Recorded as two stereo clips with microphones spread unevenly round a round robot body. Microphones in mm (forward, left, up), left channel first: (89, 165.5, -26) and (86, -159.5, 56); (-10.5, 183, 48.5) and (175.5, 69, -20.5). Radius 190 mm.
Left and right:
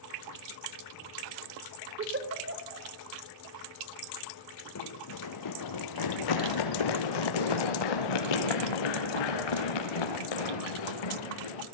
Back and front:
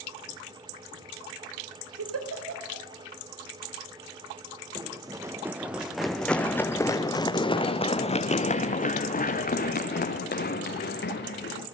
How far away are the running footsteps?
About 2.5 m.